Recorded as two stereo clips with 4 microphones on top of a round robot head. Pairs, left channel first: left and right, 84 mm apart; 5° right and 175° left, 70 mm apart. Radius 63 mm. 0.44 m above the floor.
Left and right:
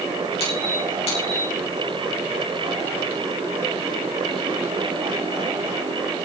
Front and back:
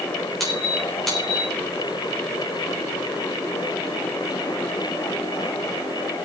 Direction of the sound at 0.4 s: 85° left.